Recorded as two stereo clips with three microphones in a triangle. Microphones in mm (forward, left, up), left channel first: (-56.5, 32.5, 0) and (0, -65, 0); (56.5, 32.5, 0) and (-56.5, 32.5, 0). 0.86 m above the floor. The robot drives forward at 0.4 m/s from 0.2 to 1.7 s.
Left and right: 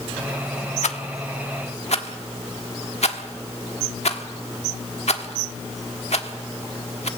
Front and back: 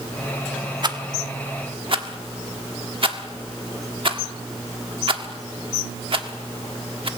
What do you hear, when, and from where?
0.8 s a rattle: 130° left, 1.2 m; by 7.1 s 140° left, 1.5 m